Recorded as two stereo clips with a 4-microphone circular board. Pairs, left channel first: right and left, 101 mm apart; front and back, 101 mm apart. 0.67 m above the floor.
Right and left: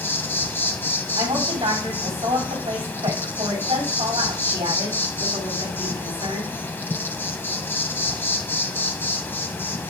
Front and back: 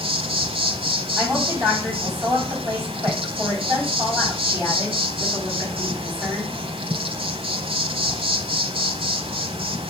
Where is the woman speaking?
120° left, 4.5 m.